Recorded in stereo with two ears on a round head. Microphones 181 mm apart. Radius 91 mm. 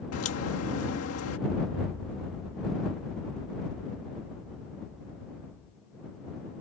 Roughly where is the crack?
Left.